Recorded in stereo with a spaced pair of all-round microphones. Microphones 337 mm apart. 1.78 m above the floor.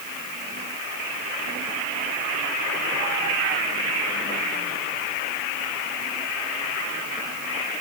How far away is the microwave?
No microwave in this recording.